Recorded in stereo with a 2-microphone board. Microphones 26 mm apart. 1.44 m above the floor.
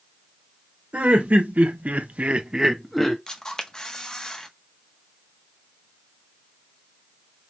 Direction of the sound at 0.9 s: 70° right (ahead or behind).